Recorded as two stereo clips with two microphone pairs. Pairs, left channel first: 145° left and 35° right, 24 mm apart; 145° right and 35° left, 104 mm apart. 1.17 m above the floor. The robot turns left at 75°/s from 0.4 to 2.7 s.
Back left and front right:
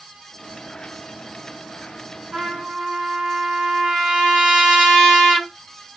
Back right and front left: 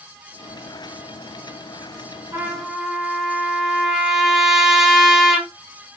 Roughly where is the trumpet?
Ahead.